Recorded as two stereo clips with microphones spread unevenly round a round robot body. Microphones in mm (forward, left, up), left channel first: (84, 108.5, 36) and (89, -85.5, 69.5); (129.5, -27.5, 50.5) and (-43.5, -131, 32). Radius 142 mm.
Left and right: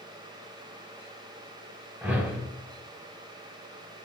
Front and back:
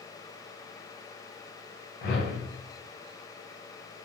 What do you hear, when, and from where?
2.0 s a whoosh: straight ahead, 1.0 m